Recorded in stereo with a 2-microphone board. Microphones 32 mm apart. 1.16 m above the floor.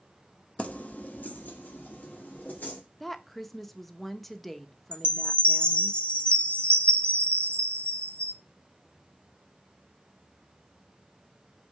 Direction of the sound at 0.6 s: 50° left (ahead or behind).